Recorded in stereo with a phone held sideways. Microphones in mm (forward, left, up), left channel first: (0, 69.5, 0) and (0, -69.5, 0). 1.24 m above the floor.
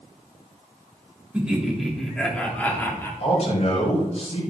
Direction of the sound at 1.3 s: 10° right (ahead or behind).